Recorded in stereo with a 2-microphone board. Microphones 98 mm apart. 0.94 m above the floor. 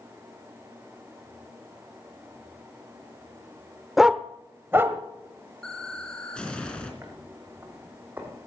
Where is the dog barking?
Centre (ahead or behind), 0.6 m; by 5.0 s 25° right (ahead or behind), 1.5 m.